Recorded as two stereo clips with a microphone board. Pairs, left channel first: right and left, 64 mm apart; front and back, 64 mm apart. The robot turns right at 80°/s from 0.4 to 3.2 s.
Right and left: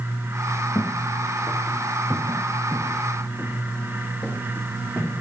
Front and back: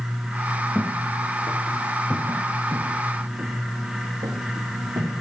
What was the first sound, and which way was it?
Footsteps, 75° right.